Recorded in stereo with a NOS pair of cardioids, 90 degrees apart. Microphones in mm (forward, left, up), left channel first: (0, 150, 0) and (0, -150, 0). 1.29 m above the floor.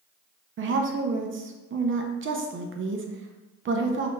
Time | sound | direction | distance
0.6 | a woman speaking | 40° right | 0.9 m